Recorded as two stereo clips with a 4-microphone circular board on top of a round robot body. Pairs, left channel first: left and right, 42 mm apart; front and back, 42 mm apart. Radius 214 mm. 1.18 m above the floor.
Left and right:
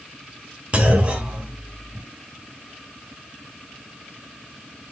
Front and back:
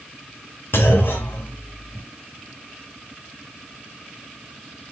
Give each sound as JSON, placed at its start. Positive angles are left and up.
{"t": 0.7, "sound": "a clunk", "azimuth_deg": -35, "distance_m": 1.5}